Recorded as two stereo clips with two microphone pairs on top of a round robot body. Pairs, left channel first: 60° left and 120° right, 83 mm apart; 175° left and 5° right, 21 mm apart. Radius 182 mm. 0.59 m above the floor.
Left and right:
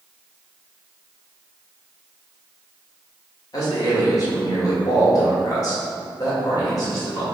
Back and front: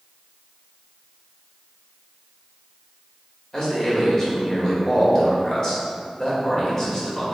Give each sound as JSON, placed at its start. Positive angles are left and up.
{"t": 3.5, "sound": "a man speaking", "azimuth_deg": 110, "distance_m": 1.8}